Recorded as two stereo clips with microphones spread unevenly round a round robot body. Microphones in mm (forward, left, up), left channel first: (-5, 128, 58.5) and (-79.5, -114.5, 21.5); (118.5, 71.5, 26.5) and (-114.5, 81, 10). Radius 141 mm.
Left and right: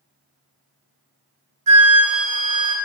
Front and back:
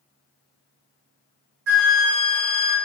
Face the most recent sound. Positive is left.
turn(degrees=-135)